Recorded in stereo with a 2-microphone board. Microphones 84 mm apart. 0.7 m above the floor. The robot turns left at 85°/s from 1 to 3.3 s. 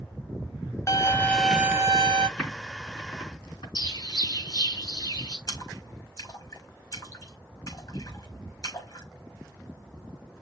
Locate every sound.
0.9 s a violin: 40° left, 0.8 m; by 2.3 s 70° right, 0.8 m
2.4 s typing on a keyboard: 5° left (ahead or behind), 3.5 m; by 3.6 s 80° left, 3.5 m
3.8 s a bird: 55° left (ahead or behind), 4.5 m
5.5 s a splash: 55° left (ahead or behind), 4.5 m